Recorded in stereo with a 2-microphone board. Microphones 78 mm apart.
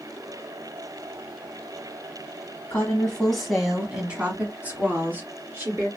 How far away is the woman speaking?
About 1.1 m.